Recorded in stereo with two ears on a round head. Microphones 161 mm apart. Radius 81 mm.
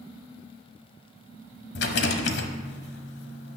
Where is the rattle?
70° left (ahead or behind), 1.0 m.